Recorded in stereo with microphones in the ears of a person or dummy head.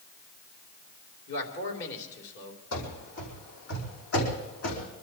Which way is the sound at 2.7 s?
70° left (ahead or behind).